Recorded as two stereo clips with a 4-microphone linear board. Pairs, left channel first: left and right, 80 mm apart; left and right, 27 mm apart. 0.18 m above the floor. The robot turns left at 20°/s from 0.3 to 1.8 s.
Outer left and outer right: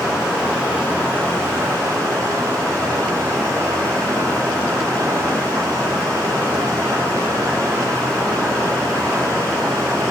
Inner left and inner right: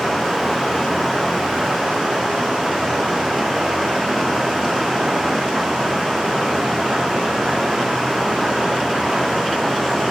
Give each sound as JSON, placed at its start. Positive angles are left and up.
{"t": 0.0, "sound": "running water", "azimuth_deg": -15, "distance_m": 9.0}